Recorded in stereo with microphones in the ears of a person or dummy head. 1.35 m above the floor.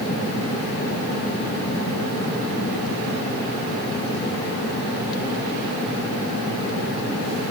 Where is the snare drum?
No snare drum in this recording.